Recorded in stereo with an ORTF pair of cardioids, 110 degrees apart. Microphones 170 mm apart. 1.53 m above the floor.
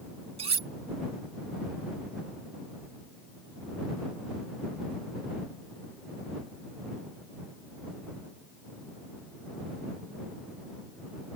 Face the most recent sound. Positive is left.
turn(degrees=-35)